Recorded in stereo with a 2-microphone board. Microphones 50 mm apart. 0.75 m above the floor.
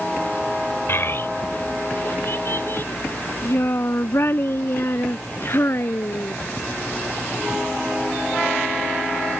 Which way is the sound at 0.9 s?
55° left (ahead or behind).